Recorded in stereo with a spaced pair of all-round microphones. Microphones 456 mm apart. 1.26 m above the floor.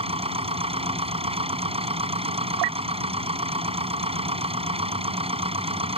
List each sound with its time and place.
0.0 s a machine running: 10° right (ahead or behind)